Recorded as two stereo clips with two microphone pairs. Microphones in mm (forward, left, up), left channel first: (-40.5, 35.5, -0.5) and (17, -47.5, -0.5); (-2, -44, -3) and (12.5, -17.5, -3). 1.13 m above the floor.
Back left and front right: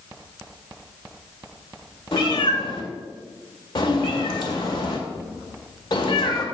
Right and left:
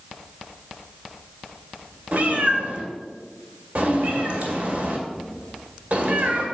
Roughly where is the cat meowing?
Left.